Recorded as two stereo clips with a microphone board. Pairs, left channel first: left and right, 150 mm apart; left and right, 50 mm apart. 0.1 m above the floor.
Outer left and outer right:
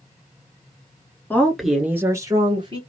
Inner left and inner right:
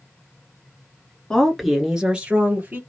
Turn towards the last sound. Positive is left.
turn(degrees=-35)  # may be behind; listen again after turning